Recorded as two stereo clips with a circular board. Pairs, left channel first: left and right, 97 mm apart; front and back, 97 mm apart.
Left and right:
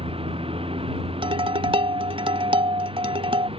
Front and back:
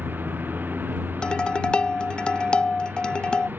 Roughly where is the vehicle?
Right.